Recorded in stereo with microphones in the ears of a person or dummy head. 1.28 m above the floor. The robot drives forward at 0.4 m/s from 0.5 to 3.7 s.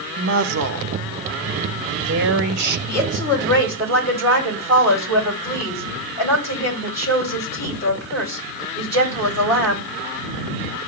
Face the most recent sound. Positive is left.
turn(degrees=15)  # may be behind; listen again after turning